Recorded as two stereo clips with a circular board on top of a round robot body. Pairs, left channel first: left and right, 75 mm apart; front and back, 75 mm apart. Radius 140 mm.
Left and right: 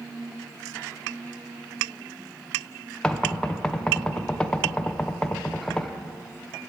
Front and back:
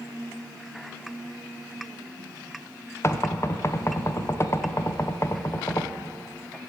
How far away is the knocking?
About 0.9 m.